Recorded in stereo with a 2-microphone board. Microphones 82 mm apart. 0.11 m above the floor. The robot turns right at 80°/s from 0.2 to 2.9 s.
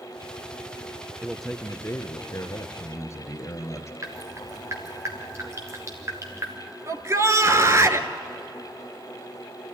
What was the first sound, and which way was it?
A man speaking, 15° right.